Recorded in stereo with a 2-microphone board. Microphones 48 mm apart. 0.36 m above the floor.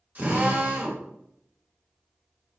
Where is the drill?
35° right (ahead or behind), 1.6 m.